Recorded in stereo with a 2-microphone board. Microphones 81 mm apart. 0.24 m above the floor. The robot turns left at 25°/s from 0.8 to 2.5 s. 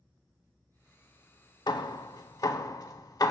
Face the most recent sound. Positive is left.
turn(degrees=50)  # may be behind; listen again after turning